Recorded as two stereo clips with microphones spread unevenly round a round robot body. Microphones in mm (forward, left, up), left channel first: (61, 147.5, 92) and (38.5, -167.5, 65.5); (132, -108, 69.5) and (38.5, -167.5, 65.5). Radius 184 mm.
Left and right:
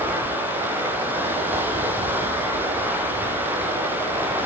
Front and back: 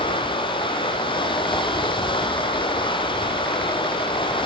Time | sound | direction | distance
0.0 | running water | 10° right | 3.5 m